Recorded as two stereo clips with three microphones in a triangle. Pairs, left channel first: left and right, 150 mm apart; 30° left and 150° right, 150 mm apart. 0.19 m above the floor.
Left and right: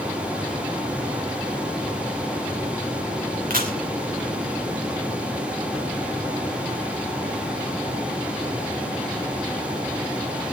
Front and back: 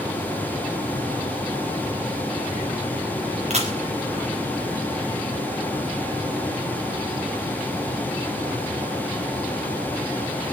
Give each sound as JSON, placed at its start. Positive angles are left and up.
{"t": 3.5, "sound": "a camera shutter", "azimuth_deg": -110, "distance_m": 4.0}